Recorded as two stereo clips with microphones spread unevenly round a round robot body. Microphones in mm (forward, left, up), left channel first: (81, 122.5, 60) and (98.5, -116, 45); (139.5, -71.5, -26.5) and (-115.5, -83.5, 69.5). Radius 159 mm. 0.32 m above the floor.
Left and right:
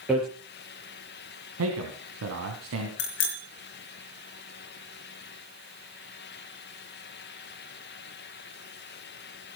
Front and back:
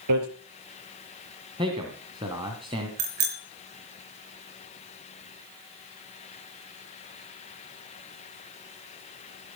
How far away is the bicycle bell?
About 3 m.